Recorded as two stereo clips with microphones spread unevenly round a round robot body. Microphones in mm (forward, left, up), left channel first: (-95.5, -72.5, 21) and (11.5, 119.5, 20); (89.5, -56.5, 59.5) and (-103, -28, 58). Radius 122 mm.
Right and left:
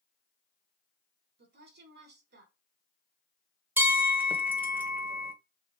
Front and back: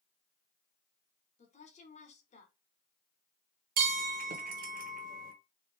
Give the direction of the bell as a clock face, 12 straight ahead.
7 o'clock.